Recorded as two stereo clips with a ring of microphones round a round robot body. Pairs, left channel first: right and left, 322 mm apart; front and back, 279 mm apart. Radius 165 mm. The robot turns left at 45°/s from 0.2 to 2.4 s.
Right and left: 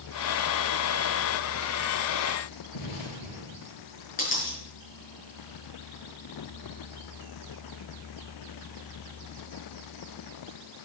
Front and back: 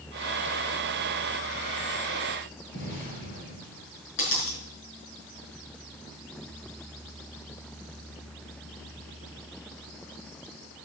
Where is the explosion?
60° right, 4.5 m.